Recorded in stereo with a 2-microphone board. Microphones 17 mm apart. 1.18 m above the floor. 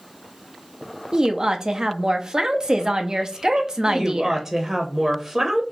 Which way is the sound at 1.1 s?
45° right (ahead or behind).